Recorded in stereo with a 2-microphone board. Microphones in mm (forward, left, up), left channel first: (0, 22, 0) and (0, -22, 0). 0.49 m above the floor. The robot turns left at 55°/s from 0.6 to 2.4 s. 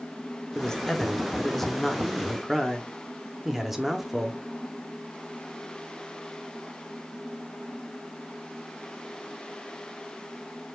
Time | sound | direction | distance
0.6 | a man speaking | 20° left (ahead or behind) | 0.6 m